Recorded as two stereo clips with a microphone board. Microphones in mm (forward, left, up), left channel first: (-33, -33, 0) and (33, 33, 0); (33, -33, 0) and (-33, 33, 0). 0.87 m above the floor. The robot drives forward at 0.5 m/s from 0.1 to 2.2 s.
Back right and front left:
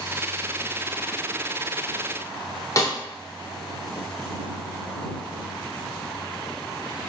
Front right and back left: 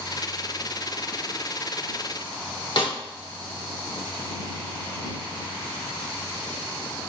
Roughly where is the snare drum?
Right.